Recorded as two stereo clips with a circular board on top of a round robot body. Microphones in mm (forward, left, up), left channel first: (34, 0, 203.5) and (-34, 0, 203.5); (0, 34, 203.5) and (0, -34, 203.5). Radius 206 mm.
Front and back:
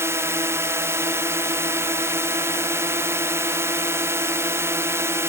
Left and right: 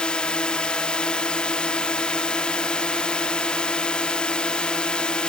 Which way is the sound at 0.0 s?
160° left.